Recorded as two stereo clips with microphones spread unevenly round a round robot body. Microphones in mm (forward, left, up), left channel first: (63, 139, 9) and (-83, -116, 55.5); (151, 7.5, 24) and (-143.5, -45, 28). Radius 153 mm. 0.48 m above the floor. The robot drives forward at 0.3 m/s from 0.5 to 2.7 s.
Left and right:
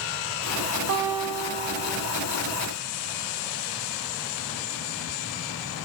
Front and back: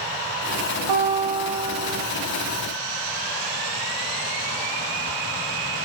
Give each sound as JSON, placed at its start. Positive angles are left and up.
{"t": 0.9, "sound": "a guitar", "azimuth_deg": -175, "distance_m": 0.5}